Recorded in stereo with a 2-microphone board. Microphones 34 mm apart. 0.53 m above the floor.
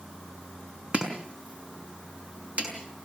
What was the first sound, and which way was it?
Chopping, 40° right (ahead or behind).